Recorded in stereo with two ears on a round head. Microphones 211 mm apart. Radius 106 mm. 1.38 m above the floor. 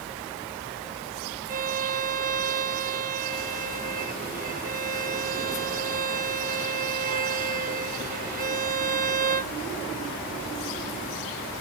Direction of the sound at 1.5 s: 35° right (ahead or behind).